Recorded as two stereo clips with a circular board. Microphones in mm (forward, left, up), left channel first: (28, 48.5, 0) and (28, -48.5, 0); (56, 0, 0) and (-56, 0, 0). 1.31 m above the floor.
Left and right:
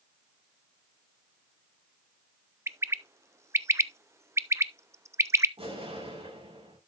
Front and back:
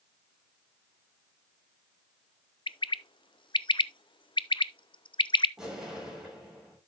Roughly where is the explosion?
Right.